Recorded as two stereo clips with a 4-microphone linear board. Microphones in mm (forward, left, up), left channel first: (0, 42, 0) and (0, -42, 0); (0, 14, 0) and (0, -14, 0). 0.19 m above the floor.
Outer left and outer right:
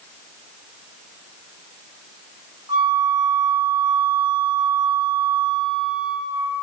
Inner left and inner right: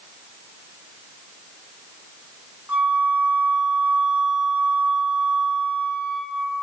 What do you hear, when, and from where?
2.7 s a flute: 60° right (ahead or behind), 4.5 m